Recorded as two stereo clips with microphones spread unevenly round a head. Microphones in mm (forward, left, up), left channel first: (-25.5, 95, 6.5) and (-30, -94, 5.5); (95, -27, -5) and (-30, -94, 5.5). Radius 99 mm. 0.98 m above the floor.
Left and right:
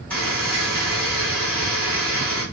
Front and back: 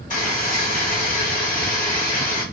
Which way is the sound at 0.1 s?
5° left.